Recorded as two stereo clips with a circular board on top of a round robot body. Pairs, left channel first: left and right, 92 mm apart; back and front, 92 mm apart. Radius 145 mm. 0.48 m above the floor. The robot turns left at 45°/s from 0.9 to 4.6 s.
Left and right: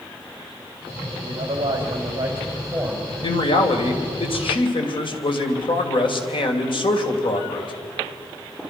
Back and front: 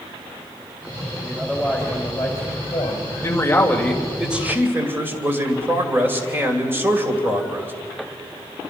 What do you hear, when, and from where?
1.2 s a man speaking: 95° right, 3.5 m; by 3.1 s straight behind, 3.5 m
3.2 s a man speaking: 130° left, 2.5 m; by 7.7 s 65° left, 2.5 m